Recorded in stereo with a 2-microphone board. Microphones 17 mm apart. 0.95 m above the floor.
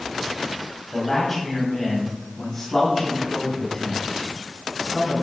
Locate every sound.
0.9 s a man speaking: 15° left (ahead or behind), 5 m; by 5.2 s 30° left (ahead or behind), 7.5 m